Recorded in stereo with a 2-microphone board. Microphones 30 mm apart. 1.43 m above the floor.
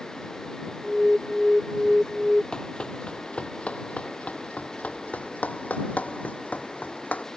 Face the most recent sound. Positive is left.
turn(degrees=65)  # may be behind; listen again after turning